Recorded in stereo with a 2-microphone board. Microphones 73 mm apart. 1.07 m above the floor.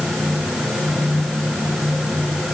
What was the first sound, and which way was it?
Only background noise.